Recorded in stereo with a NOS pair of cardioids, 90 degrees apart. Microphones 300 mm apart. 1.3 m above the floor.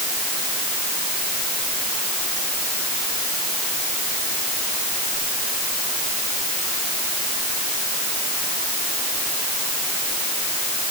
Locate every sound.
Only background noise.